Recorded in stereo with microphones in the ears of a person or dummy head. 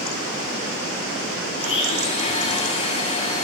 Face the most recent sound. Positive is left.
turn(degrees=35)  # may be behind; listen again after turning